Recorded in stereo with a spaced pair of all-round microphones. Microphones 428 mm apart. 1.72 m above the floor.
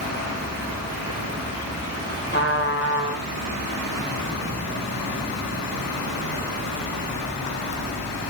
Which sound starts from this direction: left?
A trumpet, at 2.3 s.